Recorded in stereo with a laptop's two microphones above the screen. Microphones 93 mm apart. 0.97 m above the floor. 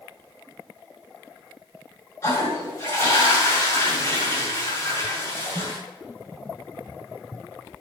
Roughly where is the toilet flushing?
Left.